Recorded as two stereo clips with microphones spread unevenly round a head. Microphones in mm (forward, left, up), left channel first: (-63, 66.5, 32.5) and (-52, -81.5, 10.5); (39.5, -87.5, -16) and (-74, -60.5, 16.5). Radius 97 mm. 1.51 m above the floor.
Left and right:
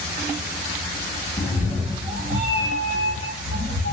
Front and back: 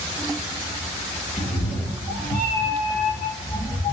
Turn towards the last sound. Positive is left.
turn(degrees=-95)